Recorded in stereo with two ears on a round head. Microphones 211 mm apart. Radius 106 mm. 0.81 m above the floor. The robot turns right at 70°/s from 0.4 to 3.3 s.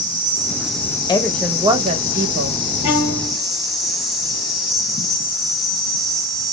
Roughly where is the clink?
I don't hear a clink.